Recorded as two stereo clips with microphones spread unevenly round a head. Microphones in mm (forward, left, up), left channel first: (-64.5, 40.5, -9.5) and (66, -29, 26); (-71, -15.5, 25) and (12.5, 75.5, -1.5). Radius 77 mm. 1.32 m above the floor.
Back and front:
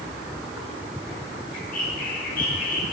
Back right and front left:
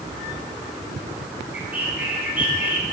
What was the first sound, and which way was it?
A bird, 125° left.